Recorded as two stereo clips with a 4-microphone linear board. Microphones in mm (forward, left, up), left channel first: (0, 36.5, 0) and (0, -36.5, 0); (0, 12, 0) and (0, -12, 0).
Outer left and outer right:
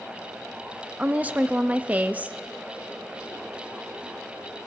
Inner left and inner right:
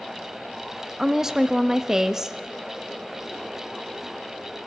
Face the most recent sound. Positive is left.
turn(degrees=-20)  # may be behind; listen again after turning